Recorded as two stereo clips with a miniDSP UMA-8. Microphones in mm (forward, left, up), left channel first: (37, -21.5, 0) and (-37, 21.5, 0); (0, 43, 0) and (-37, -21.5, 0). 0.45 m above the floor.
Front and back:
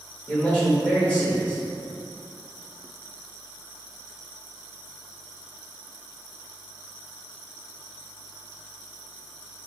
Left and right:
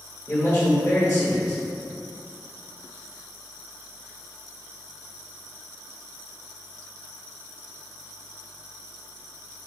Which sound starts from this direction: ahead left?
A man speaking, at 0.3 s.